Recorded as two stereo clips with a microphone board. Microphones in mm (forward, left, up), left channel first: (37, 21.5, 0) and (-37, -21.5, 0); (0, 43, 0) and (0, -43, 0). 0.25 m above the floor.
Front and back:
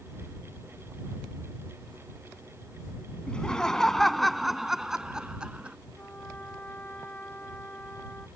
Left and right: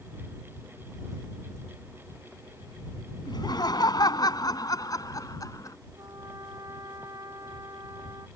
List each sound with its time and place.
3.3 s laughter: 105° left; by 5.8 s 135° left
6.0 s a trumpet: 40° right